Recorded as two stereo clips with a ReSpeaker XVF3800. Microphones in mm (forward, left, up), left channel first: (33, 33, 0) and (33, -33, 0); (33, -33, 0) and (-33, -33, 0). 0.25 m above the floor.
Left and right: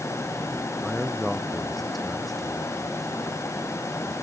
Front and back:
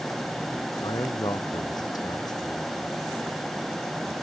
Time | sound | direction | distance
0.8 | a man speaking | straight ahead | ?